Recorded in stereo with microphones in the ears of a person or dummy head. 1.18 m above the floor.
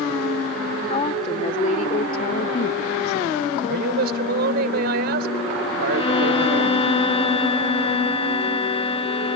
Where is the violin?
30° left (ahead or behind).